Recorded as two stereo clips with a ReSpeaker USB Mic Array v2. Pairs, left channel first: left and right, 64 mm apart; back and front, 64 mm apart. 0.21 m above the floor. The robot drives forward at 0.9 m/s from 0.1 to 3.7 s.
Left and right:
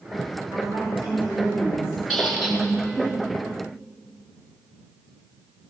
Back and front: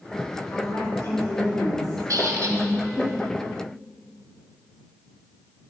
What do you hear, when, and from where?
0.5 s a woman speaking: 125° right, 2 m; by 3.1 s 160° right, 4 m
2.1 s a squeak: straight ahead, 2 m; by 2.6 s 5° right, 1.6 m